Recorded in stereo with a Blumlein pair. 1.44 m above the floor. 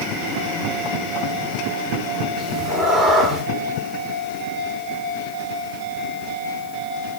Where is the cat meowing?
5° right, 2.0 m.